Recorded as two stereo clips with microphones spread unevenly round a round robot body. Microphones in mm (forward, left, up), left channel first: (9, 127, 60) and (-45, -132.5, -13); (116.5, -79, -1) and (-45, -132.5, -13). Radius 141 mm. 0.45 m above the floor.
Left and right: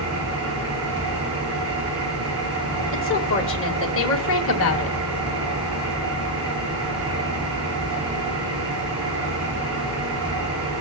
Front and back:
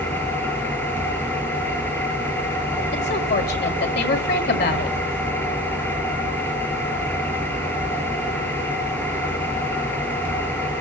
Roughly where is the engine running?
Ahead right.